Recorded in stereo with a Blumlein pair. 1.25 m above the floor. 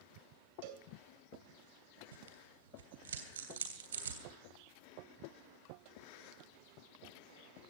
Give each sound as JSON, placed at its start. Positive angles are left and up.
{"t": 0.6, "sound": "a cowbell", "azimuth_deg": -50, "distance_m": 2.5}
{"t": 2.1, "sound": "tearing paper", "azimuth_deg": -65, "distance_m": 3.0}